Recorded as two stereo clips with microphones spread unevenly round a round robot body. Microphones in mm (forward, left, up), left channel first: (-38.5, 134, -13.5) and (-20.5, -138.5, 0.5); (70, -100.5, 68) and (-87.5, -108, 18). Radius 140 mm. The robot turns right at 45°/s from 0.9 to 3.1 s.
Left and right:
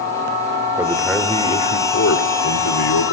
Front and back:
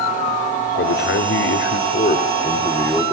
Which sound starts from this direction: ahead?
A man speaking, at 0.8 s.